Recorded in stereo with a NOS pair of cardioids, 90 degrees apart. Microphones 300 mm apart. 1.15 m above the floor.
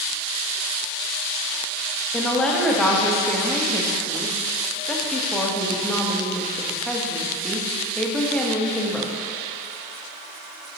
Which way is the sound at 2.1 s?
Straight ahead.